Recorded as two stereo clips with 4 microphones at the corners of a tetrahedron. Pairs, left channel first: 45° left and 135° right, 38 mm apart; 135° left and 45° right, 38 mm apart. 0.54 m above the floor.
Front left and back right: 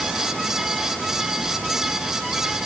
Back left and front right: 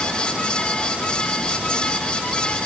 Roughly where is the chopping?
No chopping in this recording.